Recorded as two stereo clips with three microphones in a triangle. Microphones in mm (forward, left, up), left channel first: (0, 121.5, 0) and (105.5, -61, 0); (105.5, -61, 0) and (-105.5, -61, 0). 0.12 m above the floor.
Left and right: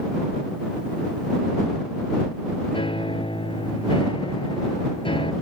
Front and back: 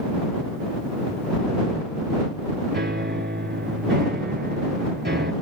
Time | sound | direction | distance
2.7 | a piano | 175° left | ?